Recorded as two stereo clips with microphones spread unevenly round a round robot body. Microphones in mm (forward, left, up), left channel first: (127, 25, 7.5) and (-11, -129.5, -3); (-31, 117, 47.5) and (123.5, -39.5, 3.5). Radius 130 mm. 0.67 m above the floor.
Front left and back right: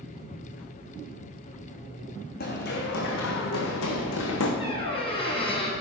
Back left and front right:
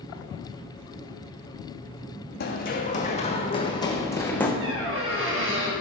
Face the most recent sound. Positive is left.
turn(degrees=-15)